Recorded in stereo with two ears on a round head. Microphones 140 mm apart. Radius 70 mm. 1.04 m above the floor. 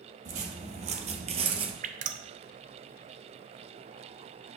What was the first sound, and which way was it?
Footsteps, 55° right (ahead or behind).